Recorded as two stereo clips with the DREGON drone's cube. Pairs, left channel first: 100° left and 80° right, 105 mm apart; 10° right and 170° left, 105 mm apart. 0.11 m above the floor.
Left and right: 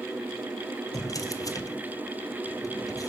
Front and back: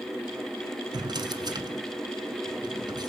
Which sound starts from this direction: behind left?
A drawer, at 0.9 s.